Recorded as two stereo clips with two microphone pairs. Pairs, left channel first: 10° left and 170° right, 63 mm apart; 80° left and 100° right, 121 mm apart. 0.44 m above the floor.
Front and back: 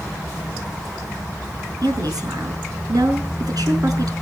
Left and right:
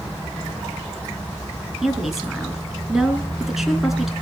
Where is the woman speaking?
175° left, 5 m.